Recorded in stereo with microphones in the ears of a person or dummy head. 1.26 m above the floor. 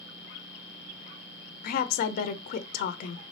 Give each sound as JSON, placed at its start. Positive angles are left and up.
{"t": 1.6, "sound": "a woman speaking", "side_deg": 55, "distance_m": 0.5}